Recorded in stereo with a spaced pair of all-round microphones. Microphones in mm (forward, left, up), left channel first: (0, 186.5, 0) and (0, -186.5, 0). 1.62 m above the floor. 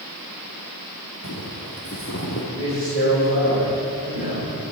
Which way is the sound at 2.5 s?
25° left (ahead or behind).